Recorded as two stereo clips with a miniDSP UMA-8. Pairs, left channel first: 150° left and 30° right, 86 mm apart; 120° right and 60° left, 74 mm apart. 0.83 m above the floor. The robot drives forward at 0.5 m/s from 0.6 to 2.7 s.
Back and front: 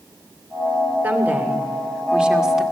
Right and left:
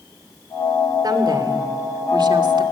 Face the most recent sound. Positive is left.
turn(degrees=55)